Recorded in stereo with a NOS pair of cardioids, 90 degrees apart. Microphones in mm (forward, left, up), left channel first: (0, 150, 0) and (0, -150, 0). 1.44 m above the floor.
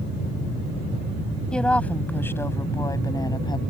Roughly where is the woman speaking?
Ahead.